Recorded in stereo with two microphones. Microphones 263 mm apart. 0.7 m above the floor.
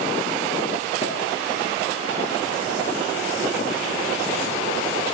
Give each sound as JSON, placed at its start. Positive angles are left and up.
{"t": 1.0, "sound": "a pop", "side_deg": 20, "distance_m": 5.0}